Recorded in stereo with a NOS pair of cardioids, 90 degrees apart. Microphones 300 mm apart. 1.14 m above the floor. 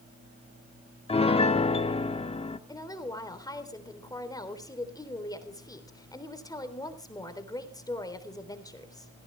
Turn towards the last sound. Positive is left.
turn(degrees=10)